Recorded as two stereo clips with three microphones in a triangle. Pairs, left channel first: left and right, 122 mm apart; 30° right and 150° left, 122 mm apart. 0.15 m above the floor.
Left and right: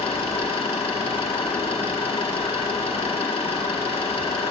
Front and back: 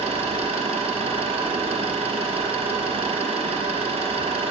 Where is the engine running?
120° left, 2.5 m.